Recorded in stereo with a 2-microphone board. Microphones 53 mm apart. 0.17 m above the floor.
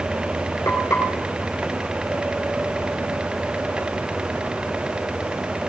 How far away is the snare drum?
I don't hear a snare drum.